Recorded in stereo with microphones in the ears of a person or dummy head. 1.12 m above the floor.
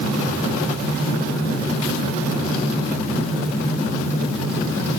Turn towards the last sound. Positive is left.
No sound to turn to.